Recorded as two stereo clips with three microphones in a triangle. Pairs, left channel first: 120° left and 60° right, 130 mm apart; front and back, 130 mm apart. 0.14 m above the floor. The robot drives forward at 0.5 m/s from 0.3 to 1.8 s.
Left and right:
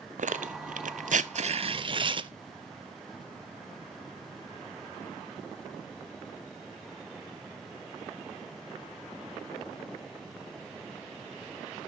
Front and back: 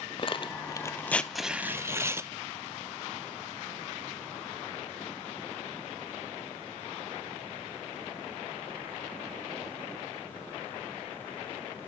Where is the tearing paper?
45° right, 0.8 m; by 2.3 s 110° right, 0.6 m.